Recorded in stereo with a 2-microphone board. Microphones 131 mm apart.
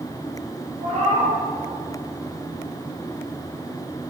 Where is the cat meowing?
60° right (ahead or behind), 1.6 m.